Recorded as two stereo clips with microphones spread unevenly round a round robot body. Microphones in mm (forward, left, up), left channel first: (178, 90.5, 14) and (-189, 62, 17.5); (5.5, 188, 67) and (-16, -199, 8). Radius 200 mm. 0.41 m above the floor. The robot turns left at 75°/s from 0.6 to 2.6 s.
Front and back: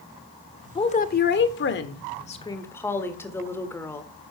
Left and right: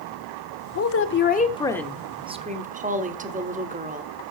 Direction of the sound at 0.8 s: 65° left.